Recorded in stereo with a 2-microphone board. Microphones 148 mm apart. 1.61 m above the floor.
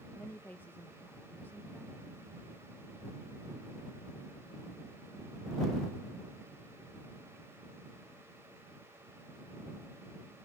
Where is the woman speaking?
15° left (ahead or behind).